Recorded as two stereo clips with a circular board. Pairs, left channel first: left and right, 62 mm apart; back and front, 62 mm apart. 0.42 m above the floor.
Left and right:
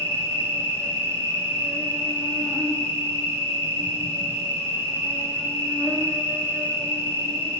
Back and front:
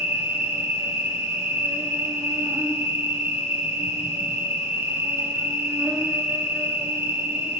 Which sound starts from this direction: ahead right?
An insect, at 0.0 s.